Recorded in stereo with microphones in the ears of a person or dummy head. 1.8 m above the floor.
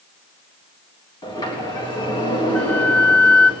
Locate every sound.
1.2 s a sliding door: 20° left (ahead or behind), 3.5 m
2.5 s a flute: 10° left (ahead or behind), 0.8 m